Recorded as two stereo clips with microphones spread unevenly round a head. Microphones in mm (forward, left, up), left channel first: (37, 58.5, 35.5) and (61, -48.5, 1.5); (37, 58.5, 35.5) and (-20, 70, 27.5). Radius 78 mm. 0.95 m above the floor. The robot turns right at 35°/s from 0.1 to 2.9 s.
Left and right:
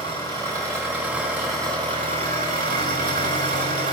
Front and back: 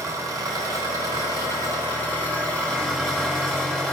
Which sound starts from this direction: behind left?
An engine running, at 0.0 s.